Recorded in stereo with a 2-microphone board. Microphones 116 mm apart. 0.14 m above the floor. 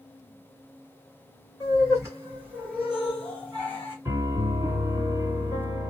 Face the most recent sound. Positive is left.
turn(degrees=-25)  # may be behind; listen again after turning